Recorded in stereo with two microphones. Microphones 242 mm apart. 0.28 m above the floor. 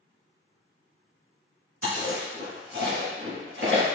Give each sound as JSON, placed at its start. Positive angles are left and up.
{"t": 1.8, "sound": "chewing", "side_deg": -60, "distance_m": 1.2}